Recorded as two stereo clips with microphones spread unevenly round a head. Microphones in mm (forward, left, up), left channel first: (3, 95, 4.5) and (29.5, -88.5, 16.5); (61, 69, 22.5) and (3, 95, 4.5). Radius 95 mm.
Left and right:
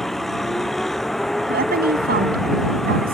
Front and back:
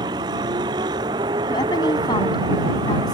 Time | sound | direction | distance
0.0 | a vehicle | 175° right | ?
1.5 | a woman speaking | 40° right | ?